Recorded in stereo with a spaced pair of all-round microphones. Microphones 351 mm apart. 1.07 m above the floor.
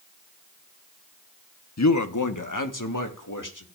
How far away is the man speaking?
About 0.7 m.